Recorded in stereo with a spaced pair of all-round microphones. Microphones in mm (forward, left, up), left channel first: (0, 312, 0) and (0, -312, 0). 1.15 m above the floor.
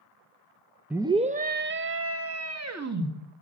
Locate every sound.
0.9 s a scream: 5° right (ahead or behind), 0.6 m; by 3.1 s 30° right (ahead or behind), 1.8 m